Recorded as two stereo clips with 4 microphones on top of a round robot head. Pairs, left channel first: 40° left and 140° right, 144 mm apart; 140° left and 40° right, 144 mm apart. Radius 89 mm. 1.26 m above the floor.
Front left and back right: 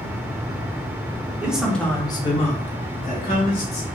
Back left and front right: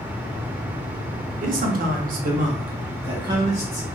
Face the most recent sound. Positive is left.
turn(degrees=30)